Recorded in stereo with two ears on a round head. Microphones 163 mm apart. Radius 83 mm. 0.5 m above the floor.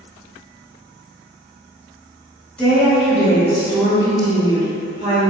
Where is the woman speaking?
5° left (ahead or behind), 1.7 m; by 5.3 s 35° right (ahead or behind), 2 m.